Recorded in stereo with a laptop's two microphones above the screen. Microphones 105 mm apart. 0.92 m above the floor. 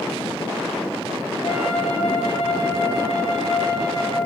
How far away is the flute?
About 1.1 m.